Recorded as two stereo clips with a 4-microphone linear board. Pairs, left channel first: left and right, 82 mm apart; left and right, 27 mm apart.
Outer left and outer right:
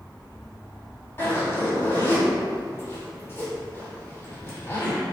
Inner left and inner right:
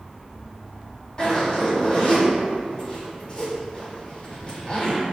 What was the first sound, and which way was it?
A zipper, 30° left (ahead or behind).